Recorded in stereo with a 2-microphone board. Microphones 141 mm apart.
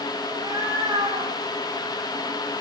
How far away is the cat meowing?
About 8 m.